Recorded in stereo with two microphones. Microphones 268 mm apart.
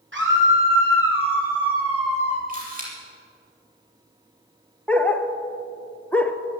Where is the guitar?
I don't hear a guitar.